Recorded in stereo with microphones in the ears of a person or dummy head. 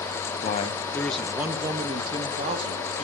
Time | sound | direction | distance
0.4 | a man speaking | 45° left (ahead or behind) | 1.0 m